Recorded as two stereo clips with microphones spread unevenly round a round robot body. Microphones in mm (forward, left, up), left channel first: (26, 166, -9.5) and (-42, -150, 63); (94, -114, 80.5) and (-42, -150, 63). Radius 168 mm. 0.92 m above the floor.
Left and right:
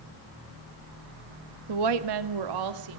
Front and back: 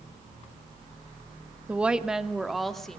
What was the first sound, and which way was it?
A woman speaking, 85° right.